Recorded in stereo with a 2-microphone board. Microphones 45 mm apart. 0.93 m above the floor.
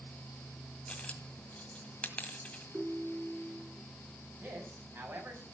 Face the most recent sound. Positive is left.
turn(degrees=-60)  # may be behind; listen again after turning